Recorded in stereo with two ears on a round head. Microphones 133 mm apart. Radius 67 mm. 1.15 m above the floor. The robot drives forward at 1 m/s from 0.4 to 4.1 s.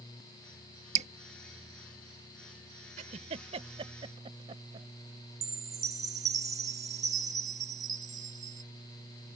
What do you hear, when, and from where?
0.9 s dripping: 50° right (ahead or behind); by 1.1 s 45° right (ahead or behind)
3.0 s a giggle: 55° right (ahead or behind); by 4.9 s 35° right (ahead or behind)
5.4 s a chime: 25° right (ahead or behind)